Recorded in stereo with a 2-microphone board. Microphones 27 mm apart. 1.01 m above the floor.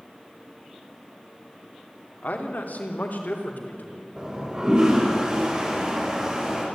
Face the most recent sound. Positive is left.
turn(degrees=-25)  # may be behind; listen again after turning